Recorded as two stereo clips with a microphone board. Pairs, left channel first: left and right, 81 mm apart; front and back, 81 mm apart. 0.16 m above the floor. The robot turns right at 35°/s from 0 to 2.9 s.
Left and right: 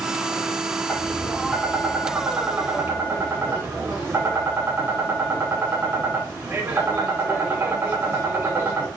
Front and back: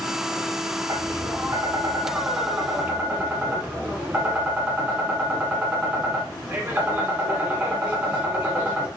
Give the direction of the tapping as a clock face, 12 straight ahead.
7 o'clock.